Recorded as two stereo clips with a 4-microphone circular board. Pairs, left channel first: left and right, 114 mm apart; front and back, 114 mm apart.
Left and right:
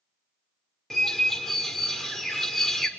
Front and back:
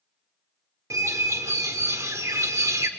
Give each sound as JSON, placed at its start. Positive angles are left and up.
{"t": 0.9, "sound": "a bird", "azimuth_deg": 170, "distance_m": 1.4}